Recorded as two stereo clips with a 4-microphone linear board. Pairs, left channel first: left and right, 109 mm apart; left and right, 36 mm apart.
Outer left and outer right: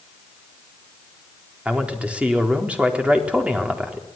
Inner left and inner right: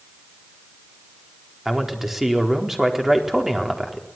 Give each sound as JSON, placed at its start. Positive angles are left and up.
{"t": 1.6, "sound": "a man speaking", "side_deg": -10, "distance_m": 4.0}